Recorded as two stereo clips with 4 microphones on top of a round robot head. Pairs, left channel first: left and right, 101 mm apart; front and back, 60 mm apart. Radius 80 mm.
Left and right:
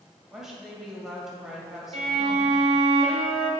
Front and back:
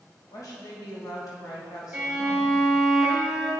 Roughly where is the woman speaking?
Ahead.